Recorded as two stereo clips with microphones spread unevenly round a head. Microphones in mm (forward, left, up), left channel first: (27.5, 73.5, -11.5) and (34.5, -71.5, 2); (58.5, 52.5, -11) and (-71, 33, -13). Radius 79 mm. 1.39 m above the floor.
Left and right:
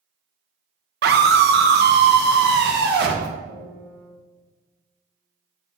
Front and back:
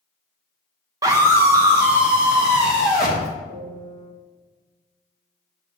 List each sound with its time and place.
1.0 s a scream: 100° right, 0.9 m; by 3.3 s 85° right, 1.9 m
3.5 s a piano: 65° right, 2 m